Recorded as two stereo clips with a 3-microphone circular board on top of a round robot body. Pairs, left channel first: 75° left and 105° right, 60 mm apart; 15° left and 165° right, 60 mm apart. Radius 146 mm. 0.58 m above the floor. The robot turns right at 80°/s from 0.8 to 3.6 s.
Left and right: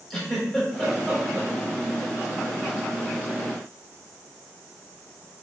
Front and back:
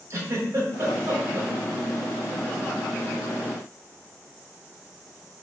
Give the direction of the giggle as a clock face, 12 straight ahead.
7 o'clock.